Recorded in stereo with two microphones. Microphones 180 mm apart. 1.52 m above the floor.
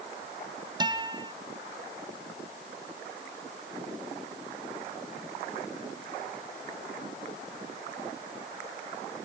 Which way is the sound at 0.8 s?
25° right (ahead or behind).